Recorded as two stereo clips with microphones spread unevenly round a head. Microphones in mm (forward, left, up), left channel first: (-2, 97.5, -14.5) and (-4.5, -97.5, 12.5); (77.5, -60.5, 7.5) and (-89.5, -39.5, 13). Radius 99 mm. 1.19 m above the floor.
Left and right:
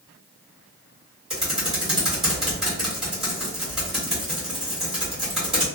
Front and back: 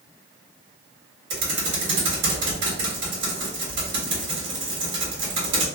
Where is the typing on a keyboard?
175° right, 1.2 m.